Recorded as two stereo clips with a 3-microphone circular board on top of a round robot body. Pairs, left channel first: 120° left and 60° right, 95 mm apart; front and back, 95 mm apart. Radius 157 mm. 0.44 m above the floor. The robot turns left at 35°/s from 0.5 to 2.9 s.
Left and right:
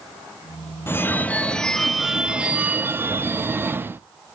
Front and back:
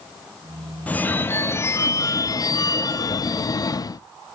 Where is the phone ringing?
65° left, 0.7 m; by 4.0 s 5° right, 0.7 m.